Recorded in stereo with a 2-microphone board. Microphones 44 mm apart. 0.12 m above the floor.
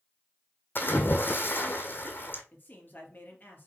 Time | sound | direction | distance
0.8 | a splash | 55° left (ahead or behind) | 1.3 m
2.5 | a man speaking | 45° left (ahead or behind) | 2.5 m